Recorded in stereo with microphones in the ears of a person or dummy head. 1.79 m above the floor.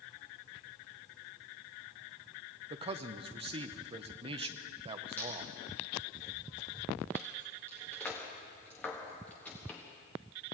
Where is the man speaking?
30° right (ahead or behind), 0.7 m.